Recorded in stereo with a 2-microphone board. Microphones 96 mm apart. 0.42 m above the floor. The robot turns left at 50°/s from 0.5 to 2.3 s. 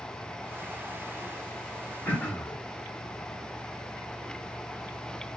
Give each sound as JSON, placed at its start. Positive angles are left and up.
{"t": 2.0, "sound": "throat clearing", "side_deg": 15, "distance_m": 1.1}